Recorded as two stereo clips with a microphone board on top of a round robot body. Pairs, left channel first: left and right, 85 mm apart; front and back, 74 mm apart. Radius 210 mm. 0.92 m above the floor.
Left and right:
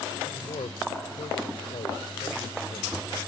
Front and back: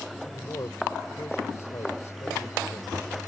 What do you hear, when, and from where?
0.3 s a man speaking: 55° left